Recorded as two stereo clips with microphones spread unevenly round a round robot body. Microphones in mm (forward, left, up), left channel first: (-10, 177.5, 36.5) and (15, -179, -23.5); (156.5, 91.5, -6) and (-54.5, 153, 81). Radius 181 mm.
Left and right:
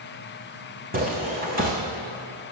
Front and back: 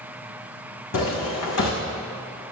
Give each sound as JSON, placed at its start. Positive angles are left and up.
{"t": 0.9, "sound": "footsteps", "azimuth_deg": -15, "distance_m": 2.5}